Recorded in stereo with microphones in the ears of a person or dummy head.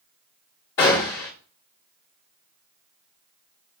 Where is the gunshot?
15° left (ahead or behind), 1.4 m.